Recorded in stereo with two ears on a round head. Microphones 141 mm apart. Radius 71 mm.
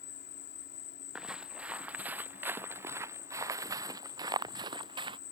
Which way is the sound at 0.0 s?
75° left (ahead or behind).